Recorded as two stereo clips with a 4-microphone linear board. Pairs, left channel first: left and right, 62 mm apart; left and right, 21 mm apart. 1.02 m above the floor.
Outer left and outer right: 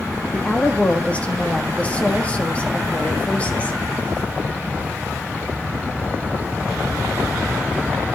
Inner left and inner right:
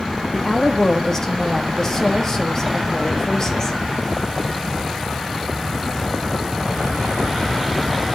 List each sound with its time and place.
0.3 s a woman speaking: 20° left (ahead or behind), 1.5 m